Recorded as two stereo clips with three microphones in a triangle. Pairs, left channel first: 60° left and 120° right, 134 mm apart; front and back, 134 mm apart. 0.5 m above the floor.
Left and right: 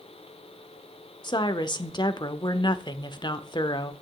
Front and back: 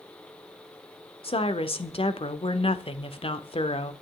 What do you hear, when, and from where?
1.2 s a woman speaking: 20° left, 1.0 m